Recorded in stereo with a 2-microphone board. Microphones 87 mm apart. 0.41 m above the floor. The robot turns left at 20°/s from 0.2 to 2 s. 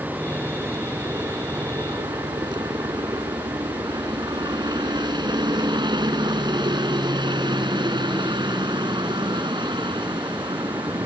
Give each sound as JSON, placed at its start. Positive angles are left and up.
{"t": 0.0, "sound": "a helicopter", "side_deg": -20}